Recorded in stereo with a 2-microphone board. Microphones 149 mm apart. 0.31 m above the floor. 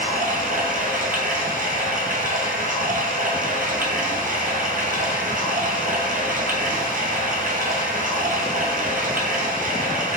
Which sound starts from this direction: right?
Running water, at 0.0 s.